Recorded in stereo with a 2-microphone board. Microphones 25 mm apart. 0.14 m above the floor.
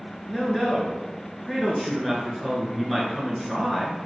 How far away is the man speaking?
About 1.6 m.